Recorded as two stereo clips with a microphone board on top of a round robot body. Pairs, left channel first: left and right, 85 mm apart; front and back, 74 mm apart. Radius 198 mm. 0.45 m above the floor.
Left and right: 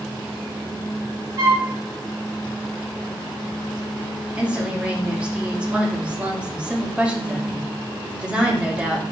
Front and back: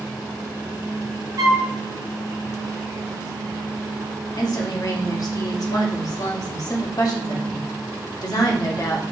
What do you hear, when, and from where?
1.4 s a flute: 140° right, 0.7 m
4.4 s a woman speaking: 15° right, 1.8 m